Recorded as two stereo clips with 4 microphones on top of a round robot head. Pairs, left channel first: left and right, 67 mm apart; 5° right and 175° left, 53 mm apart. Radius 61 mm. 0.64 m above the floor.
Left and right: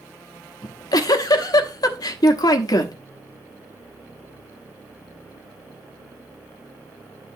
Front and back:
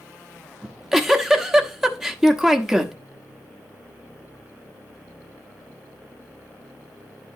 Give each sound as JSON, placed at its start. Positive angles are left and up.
{"t": 0.6, "sound": "a giggle", "azimuth_deg": 90, "distance_m": 1.2}